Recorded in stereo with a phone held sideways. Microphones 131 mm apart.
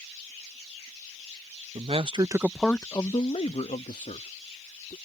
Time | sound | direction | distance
1.8 | a man speaking | 55° right (ahead or behind) | ?